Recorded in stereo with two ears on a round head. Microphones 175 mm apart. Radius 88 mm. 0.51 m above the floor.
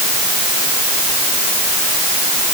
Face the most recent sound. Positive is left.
No sound to turn to.